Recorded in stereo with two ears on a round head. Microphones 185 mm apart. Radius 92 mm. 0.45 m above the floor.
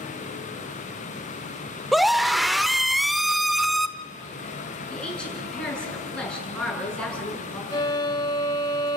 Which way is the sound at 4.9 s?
5° left (ahead or behind).